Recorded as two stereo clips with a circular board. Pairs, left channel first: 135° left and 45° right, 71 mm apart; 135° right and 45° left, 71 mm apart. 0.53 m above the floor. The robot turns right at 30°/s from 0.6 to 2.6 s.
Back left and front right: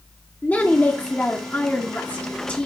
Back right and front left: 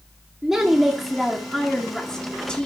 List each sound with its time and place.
0.4 s a woman speaking: 115° left, 1.3 m; by 2.7 s 175° left, 1.3 m